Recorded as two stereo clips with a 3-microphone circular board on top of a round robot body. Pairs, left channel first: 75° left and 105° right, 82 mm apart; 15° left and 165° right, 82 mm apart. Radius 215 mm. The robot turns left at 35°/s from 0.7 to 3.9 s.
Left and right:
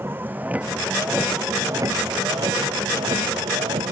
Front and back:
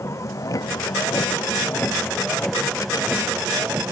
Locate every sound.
0.0 s a vehicle: 40° right; by 3.9 s 95° right